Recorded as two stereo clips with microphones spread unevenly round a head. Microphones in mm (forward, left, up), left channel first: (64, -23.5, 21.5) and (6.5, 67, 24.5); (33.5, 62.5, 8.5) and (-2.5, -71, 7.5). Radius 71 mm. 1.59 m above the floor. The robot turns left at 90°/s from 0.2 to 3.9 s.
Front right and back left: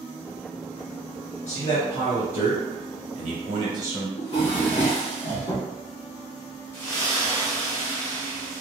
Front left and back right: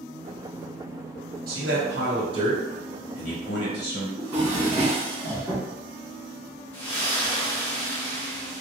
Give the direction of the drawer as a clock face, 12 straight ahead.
1 o'clock.